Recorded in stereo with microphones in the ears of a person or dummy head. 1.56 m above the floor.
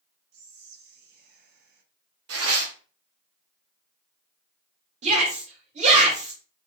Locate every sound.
0.3 s whispering: 65° right (ahead or behind), 0.8 m
2.3 s tearing paper: 65° right (ahead or behind), 0.5 m
5.0 s a shout: 50° right (ahead or behind), 1.4 m